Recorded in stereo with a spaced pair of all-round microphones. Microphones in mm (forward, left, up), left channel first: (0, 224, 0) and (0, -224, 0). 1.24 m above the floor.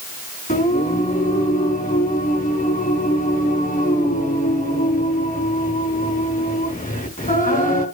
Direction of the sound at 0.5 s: 20° left (ahead or behind).